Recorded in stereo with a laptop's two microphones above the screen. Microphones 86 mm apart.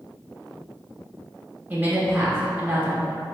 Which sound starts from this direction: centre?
A woman speaking, at 1.7 s.